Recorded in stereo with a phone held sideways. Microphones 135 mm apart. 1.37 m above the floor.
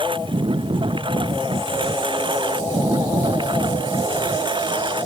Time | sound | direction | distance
0.0 | a lawn mower | 40° right (ahead or behind) | ?